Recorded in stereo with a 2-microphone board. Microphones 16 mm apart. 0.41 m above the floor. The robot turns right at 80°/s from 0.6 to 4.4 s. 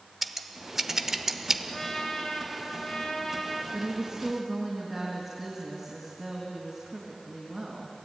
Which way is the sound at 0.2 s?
15° right (ahead or behind).